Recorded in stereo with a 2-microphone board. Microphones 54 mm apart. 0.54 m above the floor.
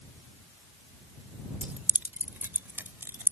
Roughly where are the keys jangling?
Right.